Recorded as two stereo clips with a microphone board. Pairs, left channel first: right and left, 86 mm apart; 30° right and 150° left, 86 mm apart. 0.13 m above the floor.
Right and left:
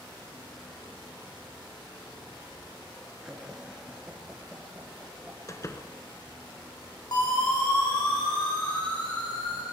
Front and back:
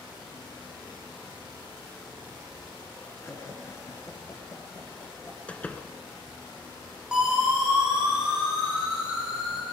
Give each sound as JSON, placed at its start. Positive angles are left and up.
{"t": 3.2, "sound": "laughter", "azimuth_deg": 10, "distance_m": 2.0}
{"t": 5.5, "sound": "a door slam", "azimuth_deg": -90, "distance_m": 1.1}
{"t": 7.1, "sound": "a siren", "azimuth_deg": -130, "distance_m": 7.5}